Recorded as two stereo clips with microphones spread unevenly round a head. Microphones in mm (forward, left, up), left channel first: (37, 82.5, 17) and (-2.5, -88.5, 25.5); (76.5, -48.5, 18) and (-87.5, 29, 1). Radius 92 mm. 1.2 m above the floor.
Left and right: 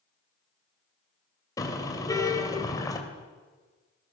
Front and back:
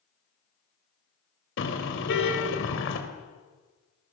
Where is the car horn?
5° left, 3.5 m.